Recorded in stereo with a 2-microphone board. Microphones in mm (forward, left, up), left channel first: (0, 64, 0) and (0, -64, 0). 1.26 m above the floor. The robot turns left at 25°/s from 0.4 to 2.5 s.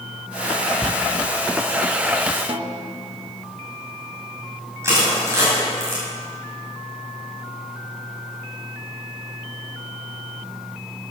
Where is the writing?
35° right (ahead or behind), 0.8 m.